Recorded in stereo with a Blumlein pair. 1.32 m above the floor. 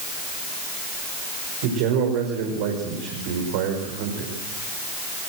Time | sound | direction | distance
1.6 | a man speaking | 50° right | 5.5 m